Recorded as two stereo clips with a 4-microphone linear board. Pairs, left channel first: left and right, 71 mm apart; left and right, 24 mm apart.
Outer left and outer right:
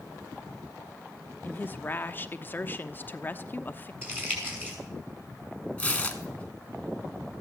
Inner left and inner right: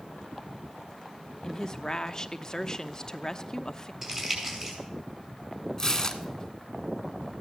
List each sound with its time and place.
1.4 s a woman speaking: 30° left (ahead or behind), 0.8 m
4.0 s crumpling: 30° right (ahead or behind), 5 m
5.8 s tearing paper: 20° left (ahead or behind), 1.2 m